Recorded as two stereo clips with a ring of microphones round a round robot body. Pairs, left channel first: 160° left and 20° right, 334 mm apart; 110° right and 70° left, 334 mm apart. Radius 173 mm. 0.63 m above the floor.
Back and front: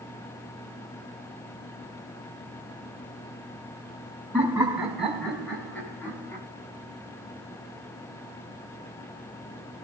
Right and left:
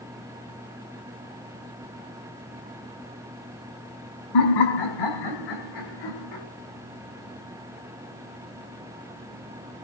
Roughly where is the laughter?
Right.